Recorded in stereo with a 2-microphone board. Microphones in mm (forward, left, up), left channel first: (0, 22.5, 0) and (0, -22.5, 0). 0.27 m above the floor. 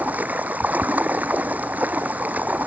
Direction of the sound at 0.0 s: 35° right (ahead or behind).